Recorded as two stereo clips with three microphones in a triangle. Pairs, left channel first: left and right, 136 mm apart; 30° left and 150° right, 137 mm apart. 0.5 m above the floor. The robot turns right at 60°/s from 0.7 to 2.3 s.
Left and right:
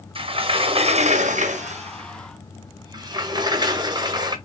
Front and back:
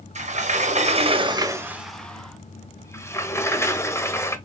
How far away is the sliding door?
About 0.7 m.